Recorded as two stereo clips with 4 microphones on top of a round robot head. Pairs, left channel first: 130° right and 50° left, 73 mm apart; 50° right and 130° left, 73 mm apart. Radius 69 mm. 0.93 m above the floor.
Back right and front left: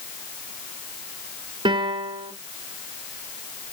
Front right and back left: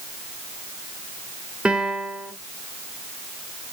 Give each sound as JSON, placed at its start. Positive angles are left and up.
{"t": 1.6, "sound": "a piano", "azimuth_deg": 55, "distance_m": 0.9}